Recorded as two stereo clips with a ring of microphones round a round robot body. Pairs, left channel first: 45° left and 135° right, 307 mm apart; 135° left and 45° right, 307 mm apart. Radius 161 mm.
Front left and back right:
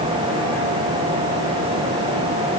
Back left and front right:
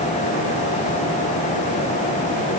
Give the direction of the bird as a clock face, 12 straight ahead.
I don't hear a bird.